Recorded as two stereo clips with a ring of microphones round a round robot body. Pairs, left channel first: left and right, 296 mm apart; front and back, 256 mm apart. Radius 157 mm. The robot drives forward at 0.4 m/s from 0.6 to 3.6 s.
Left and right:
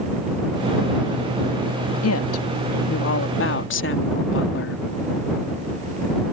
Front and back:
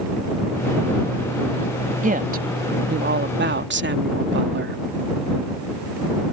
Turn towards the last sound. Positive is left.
turn(degrees=135)